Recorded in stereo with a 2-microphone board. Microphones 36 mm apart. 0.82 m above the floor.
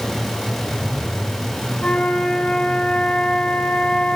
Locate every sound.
1.8 s a flute: 30° left (ahead or behind), 1.6 m